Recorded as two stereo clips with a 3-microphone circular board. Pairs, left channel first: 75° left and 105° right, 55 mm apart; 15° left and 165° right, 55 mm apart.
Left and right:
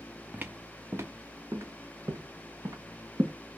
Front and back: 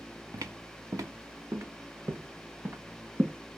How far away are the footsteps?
About 1.0 m.